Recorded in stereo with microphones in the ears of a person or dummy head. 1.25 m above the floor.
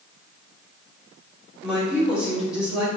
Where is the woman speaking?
Centre (ahead or behind), 1.8 m.